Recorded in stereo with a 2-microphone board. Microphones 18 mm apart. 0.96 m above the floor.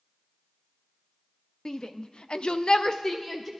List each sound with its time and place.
1.6 s a shout: 45° left (ahead or behind), 1.0 m; by 3.5 s 15° left (ahead or behind), 1.0 m